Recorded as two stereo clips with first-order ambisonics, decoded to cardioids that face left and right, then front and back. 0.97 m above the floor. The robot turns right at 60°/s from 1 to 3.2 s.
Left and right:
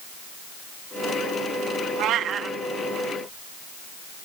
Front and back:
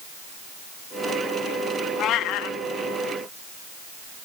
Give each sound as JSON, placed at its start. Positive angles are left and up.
{"t": 2.0, "sound": "a cat meowing", "azimuth_deg": -55, "distance_m": 0.6}